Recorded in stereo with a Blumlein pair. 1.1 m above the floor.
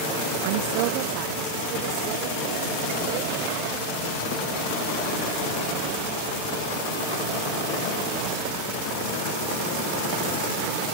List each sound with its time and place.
0.4 s a woman speaking: 50° right; by 6.5 s 35° right